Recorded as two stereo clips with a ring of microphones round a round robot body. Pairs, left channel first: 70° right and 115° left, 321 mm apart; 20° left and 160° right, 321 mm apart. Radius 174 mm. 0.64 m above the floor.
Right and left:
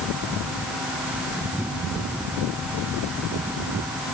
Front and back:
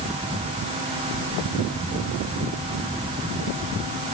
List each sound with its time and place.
Only background noise.